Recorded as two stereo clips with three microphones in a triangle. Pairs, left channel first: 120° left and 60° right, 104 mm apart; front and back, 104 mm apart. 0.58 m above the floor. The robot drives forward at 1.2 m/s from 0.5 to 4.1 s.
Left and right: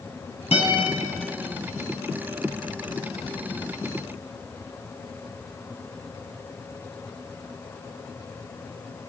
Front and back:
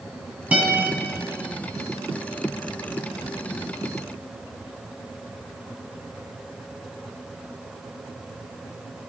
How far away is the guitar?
About 5.5 m.